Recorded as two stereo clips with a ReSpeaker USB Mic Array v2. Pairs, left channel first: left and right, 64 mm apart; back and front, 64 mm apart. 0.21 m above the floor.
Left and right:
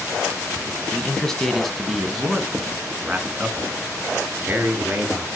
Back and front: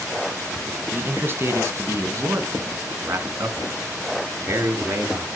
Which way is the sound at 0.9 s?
25° left.